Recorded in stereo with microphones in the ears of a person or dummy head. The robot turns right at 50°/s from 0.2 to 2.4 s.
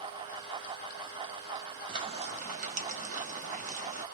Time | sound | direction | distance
1.9 | frying | 25° right (ahead or behind) | 0.7 m